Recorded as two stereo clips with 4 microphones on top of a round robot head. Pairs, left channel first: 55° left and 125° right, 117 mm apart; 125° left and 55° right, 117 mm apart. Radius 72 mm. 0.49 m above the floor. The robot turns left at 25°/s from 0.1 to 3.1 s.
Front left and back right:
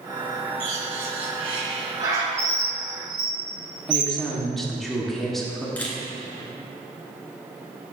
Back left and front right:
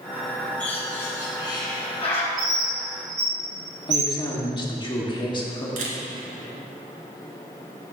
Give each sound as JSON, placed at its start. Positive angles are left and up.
{"t": 0.6, "sound": "a bird", "azimuth_deg": -155, "distance_m": 1.9}
{"t": 2.4, "sound": "a bird", "azimuth_deg": -55, "distance_m": 2.5}
{"t": 3.9, "sound": "a woman speaking", "azimuth_deg": 140, "distance_m": 1.5}
{"t": 5.8, "sound": "a camera shutter", "azimuth_deg": -25, "distance_m": 1.4}